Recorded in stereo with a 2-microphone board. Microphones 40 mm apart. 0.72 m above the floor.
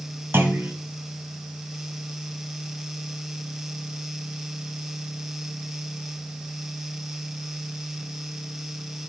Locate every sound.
0.3 s a clunk: 70° right (ahead or behind), 1.9 m